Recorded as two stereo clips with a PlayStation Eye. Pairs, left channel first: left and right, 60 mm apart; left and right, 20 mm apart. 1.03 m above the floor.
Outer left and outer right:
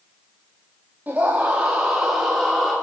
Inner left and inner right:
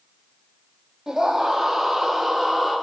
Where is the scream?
30° right (ahead or behind), 2.5 m; by 2.7 s 5° left (ahead or behind), 3 m.